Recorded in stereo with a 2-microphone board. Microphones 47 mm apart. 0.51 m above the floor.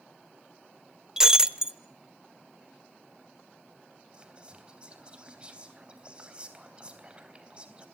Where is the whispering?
25° right (ahead or behind), 3.5 m.